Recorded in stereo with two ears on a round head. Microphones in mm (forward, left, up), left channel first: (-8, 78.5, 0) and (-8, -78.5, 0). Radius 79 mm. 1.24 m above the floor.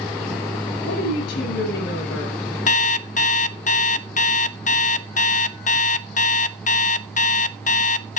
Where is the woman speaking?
70° left (ahead or behind), 6.5 m.